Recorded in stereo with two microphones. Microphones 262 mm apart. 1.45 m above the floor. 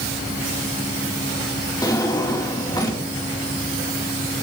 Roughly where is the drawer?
Centre.